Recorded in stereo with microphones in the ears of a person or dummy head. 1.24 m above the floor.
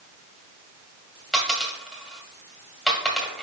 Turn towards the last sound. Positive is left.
turn(degrees=0)  # may be behind; listen again after turning